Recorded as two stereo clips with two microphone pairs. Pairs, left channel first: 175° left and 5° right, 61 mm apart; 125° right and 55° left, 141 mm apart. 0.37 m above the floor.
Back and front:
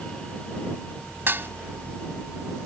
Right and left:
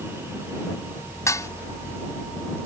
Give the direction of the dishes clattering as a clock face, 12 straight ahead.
2 o'clock.